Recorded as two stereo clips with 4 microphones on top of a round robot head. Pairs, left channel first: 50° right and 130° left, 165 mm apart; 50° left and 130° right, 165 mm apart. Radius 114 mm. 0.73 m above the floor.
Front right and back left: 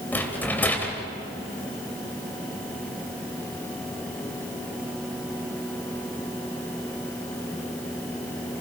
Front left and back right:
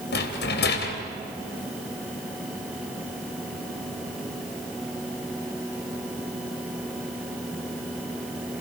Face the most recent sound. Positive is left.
turn(degrees=30)